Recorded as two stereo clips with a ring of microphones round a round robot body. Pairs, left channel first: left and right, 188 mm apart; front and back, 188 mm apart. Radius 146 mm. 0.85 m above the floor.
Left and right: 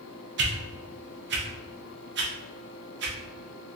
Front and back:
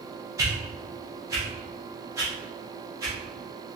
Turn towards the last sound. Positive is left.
turn(degrees=-105)